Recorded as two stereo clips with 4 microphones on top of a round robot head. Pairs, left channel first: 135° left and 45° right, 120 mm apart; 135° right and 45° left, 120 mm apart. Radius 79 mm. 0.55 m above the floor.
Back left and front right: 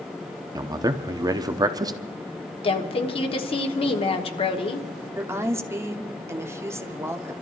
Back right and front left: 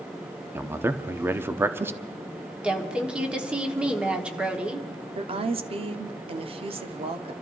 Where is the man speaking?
15° right, 0.8 m.